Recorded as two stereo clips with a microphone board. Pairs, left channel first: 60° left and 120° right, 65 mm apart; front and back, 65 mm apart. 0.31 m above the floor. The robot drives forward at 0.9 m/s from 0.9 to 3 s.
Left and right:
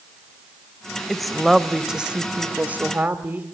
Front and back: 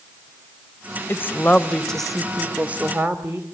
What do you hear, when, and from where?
1.1 s a woman speaking: 20° right, 1.6 m; by 3.5 s 155° right, 1.6 m